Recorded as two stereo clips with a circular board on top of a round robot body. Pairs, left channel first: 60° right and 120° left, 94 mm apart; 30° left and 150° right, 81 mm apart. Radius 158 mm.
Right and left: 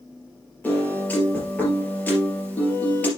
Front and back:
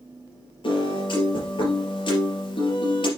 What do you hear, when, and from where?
0.6 s a piano: 15° left, 3.5 m